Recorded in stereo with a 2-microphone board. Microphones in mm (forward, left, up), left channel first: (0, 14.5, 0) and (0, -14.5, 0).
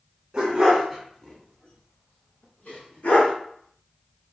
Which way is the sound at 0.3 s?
30° right (ahead or behind).